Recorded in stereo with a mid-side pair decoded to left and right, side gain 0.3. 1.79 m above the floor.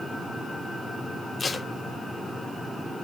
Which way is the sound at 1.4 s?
55° left.